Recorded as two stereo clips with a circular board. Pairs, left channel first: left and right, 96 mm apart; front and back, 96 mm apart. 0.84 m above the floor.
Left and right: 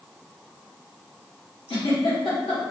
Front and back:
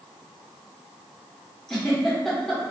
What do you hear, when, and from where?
1.7 s a giggle: 85° left, 1.0 m